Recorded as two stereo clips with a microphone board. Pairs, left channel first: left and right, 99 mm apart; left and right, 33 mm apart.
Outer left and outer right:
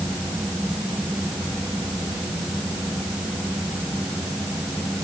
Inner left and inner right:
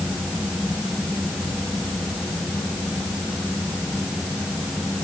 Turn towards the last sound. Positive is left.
No sound to turn to.